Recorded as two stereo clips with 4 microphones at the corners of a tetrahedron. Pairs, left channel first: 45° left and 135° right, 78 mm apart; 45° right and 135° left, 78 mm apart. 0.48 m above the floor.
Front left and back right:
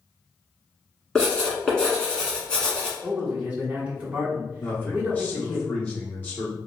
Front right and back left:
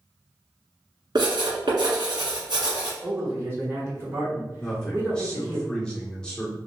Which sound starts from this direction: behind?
A man speaking, at 3.0 s.